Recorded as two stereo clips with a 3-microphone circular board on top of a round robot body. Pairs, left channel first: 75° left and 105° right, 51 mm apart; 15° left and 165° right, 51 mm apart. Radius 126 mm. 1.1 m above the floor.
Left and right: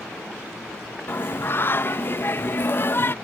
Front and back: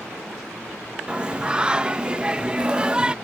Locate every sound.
1.1 s singing: 120° left